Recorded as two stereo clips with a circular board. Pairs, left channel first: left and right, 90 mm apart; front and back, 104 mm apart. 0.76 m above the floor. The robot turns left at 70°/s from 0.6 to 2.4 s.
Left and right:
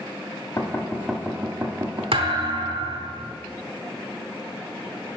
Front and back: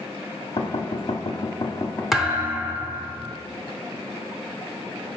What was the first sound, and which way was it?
Knocking, 30° left.